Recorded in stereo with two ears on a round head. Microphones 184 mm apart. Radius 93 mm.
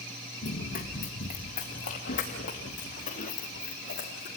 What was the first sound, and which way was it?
Running footsteps, 45° left (ahead or behind).